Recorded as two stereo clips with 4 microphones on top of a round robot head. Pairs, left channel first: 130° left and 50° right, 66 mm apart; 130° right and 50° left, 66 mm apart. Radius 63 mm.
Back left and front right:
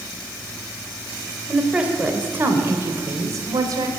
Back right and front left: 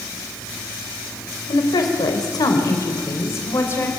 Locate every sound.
1.5 s a woman speaking: 130° right, 3.5 m; by 3.9 s 75° right, 3.5 m